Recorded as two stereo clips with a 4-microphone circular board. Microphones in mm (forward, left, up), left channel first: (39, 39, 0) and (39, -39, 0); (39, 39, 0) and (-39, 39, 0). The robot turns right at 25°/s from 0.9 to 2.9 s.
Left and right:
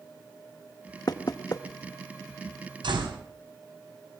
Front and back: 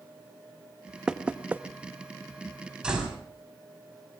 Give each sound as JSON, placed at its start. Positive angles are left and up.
{"t": 1.1, "sound": "knocking", "azimuth_deg": 100, "distance_m": 1.0}
{"t": 2.8, "sound": "a door slam", "azimuth_deg": -100, "distance_m": 5.0}